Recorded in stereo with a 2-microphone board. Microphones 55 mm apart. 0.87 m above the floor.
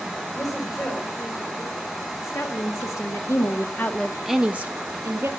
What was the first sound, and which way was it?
A woman speaking, 75° left (ahead or behind).